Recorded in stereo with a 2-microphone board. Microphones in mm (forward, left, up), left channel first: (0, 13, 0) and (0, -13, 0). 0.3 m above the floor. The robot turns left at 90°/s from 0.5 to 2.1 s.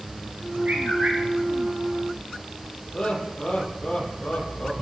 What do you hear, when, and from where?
0.7 s a bird: 70° right, 8.5 m; by 1.2 s 120° right, 8.5 m
2.9 s laughter: 40° left (ahead or behind), 8 m